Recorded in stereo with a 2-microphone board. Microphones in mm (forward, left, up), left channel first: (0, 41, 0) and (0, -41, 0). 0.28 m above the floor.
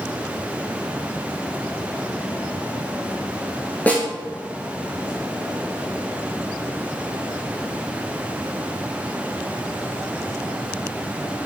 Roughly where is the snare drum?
Centre.